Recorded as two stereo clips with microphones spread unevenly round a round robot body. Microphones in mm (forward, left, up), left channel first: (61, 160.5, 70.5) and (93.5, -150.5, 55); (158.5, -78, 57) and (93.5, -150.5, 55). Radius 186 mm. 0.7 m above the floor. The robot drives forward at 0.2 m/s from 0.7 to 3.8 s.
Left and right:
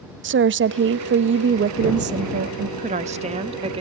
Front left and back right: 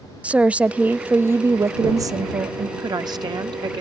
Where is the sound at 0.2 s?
60° right, 0.6 m; by 2.7 s 125° right, 0.6 m.